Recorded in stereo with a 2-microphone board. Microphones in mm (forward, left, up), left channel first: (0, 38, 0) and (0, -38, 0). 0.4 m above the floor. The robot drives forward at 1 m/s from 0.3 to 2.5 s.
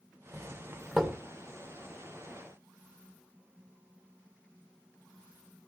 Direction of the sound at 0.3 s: 5° right (ahead or behind).